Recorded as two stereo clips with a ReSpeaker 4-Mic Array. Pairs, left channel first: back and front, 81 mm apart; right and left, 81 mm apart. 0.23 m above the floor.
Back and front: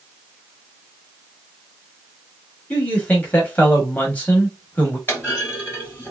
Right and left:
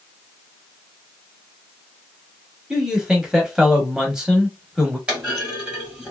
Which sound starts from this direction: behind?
A man speaking, at 2.7 s.